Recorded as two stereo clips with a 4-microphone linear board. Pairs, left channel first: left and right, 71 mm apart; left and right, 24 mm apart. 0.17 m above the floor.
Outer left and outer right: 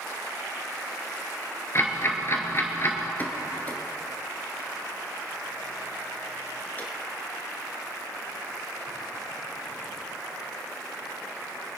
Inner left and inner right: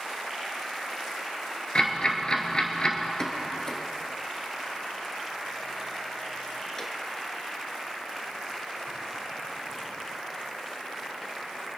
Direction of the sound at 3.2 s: 25° left (ahead or behind).